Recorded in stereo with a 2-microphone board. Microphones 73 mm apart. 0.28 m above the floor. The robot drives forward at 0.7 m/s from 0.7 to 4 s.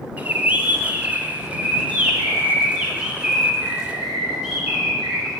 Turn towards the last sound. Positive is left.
turn(degrees=-10)  # may be behind; listen again after turning